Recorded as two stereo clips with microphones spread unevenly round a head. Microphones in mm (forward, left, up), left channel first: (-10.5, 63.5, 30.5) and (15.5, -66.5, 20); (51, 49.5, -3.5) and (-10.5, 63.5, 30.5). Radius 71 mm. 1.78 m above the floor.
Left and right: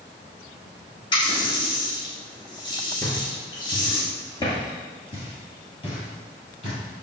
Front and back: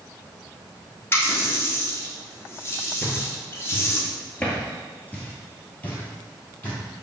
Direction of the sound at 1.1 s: 55° left.